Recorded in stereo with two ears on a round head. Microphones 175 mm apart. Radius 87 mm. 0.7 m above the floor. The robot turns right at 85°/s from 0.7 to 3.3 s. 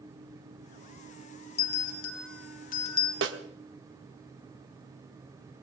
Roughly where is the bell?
Left.